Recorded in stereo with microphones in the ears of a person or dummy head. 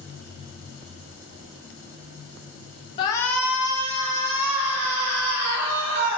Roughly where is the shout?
Left.